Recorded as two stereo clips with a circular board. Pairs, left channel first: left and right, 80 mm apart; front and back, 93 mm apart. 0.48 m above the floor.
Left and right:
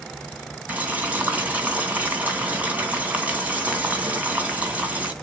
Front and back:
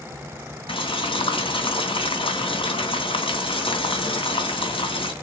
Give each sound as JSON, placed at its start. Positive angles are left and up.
{"t": 0.7, "sound": "boiling", "azimuth_deg": -20, "distance_m": 2.5}